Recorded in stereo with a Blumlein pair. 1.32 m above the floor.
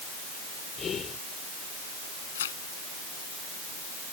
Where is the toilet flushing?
No toilet flushing in this recording.